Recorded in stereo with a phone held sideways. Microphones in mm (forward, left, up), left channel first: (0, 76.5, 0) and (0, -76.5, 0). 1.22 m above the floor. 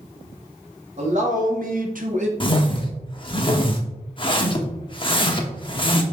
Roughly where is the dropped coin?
No dropped coin in this recording.